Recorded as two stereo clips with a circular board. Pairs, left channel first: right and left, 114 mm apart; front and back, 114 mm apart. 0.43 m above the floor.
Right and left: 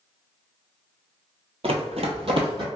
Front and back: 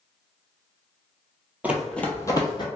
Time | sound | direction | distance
1.6 | running footsteps | 105° left | 0.7 m